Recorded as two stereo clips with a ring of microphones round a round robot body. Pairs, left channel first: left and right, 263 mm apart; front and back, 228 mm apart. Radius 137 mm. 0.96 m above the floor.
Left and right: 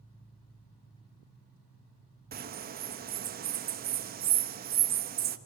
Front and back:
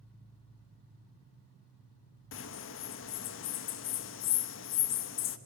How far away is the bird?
About 1.1 m.